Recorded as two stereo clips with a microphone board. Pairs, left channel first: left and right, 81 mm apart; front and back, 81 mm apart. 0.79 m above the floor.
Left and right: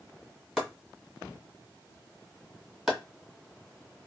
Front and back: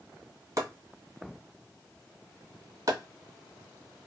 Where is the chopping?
170° right, 1.2 m.